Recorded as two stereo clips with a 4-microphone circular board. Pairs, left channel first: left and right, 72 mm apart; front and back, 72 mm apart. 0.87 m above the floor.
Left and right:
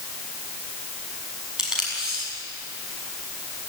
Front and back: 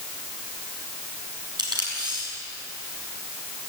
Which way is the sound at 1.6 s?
170° right.